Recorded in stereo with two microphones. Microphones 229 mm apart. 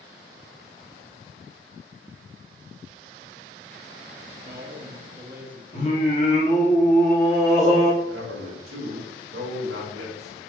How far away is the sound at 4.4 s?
About 0.8 m.